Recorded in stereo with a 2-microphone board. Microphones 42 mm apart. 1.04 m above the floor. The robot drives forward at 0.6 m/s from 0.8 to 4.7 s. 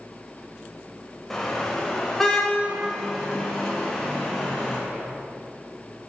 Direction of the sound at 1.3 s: 5° left (ahead or behind).